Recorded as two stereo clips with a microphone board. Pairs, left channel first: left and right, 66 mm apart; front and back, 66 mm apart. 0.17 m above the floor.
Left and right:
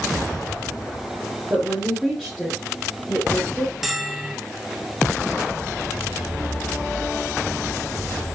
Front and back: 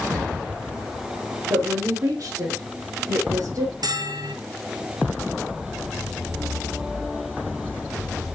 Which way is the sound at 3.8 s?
175° right.